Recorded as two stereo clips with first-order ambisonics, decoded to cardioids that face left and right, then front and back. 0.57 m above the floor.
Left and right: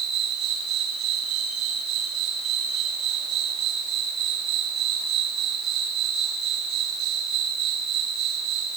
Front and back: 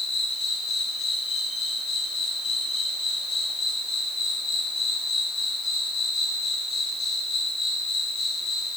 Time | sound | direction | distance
0.0 | an insect | 50° right | 6.5 m